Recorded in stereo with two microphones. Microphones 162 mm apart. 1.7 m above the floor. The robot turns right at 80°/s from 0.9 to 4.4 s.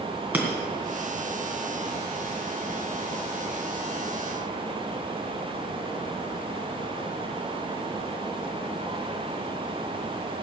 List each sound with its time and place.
0.3 s breaking glass: 10° right (ahead or behind), 2.5 m